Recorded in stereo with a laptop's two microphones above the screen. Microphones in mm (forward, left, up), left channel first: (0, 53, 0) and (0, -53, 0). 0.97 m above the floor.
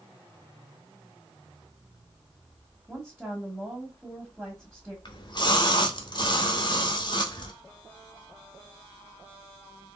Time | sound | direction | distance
2.9 | a woman speaking | 5° right (ahead or behind) | 1.3 m
5.0 | a splash | 45° left (ahead or behind) | 1.0 m